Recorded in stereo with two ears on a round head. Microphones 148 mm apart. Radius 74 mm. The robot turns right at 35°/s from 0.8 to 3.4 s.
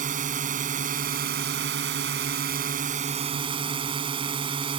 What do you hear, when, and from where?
0.0 s a drone: 125° right; by 4.8 s 35° right